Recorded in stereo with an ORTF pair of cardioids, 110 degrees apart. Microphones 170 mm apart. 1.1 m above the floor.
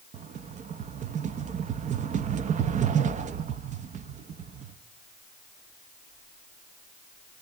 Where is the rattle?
45° right, 0.7 m.